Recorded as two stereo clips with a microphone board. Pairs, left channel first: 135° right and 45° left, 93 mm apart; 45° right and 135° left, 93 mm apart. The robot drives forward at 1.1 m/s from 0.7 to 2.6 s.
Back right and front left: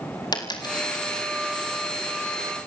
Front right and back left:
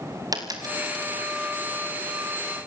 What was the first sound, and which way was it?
A dropped coin, straight behind.